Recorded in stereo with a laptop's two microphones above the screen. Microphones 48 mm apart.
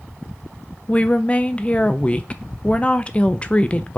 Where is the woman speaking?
25° left (ahead or behind), 0.6 m.